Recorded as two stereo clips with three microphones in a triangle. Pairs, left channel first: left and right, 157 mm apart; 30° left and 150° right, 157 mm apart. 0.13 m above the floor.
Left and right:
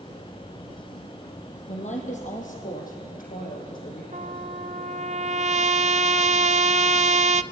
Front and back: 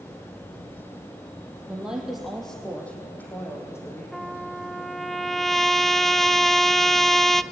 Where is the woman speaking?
125° left, 5 m; by 4.0 s 100° left, 6 m.